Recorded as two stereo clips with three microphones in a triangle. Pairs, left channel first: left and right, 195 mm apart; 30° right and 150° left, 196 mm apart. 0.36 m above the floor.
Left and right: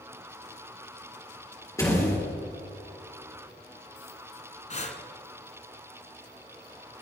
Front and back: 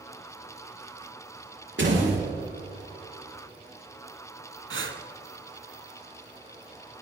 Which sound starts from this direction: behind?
A door slam, at 1.8 s.